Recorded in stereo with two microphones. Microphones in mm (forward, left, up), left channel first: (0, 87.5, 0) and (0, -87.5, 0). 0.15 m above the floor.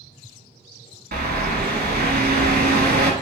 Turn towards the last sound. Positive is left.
turn(degrees=-60)  # may be behind; listen again after turning